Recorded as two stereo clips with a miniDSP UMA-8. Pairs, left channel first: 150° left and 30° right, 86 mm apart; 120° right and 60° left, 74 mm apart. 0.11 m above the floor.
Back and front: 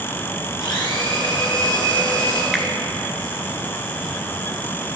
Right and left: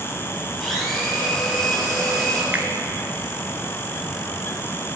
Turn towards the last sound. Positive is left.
turn(degrees=55)